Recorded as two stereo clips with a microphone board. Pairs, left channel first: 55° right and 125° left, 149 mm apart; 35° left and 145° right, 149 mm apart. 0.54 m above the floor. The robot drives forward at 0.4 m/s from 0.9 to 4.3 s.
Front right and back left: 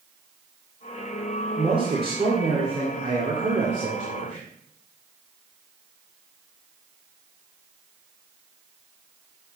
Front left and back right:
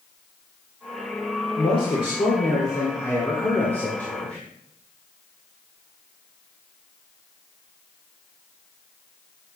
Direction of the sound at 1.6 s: 75° left.